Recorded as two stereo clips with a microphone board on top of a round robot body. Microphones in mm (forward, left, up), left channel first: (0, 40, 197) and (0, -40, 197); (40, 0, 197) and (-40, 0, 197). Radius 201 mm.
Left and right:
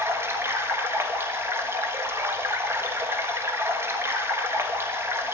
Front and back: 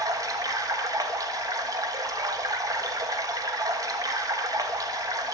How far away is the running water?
About 1.4 m.